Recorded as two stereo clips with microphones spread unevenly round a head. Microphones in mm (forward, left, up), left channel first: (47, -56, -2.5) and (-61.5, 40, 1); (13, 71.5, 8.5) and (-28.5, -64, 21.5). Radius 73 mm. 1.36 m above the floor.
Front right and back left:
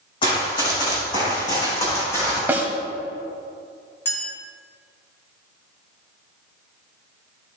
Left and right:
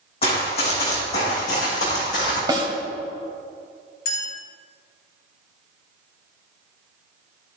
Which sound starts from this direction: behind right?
A snare drum, at 2.5 s.